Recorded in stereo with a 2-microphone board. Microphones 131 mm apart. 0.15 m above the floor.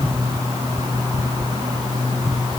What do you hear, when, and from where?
Only background noise.